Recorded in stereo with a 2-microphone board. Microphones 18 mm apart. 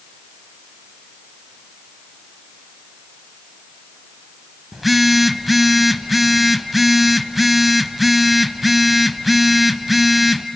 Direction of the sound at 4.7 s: 10° right (ahead or behind).